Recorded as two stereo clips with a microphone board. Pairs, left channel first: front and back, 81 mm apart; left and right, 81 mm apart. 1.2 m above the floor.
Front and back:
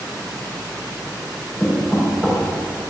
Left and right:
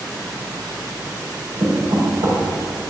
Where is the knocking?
100° right, 4 m.